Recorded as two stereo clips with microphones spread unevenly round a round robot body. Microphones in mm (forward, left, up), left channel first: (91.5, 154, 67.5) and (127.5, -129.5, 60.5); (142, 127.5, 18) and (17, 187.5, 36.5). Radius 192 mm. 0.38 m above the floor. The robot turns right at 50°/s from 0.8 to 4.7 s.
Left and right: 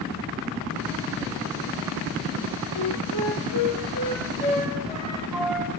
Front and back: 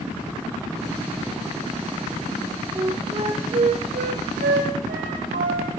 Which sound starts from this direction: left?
A flute, at 2.8 s.